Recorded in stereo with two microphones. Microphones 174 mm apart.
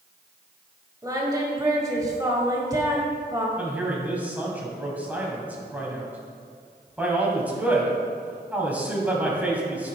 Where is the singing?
20° right (ahead or behind), 1.5 m.